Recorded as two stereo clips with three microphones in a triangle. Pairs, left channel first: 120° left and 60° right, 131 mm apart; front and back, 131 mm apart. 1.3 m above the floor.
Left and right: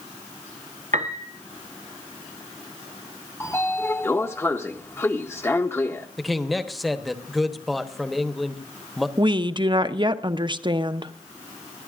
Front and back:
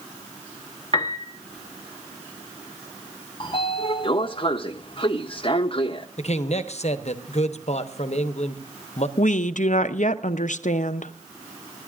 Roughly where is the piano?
Ahead right.